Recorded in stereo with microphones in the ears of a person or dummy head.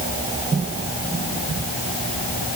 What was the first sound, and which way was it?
Only background noise.